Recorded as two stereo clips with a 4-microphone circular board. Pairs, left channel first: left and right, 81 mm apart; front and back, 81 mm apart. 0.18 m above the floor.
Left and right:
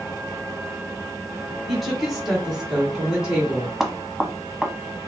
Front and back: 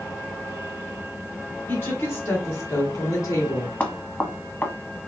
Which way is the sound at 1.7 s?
Straight ahead.